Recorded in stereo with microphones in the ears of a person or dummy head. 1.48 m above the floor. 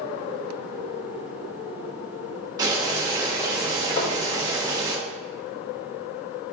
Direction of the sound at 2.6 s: 20° right (ahead or behind).